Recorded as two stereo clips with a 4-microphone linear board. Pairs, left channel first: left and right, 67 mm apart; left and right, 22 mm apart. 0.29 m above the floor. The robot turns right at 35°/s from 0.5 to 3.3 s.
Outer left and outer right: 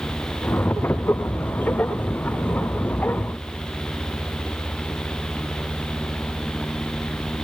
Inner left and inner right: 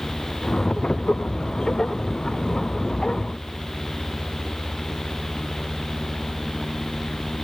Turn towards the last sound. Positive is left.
No sound to turn to.